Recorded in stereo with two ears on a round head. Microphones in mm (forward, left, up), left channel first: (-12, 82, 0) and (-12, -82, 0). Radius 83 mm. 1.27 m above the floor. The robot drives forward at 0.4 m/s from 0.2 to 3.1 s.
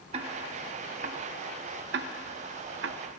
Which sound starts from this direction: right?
Ticking, at 0.1 s.